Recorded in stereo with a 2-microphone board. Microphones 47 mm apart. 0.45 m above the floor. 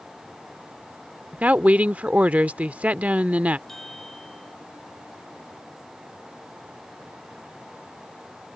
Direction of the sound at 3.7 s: 5° left (ahead or behind).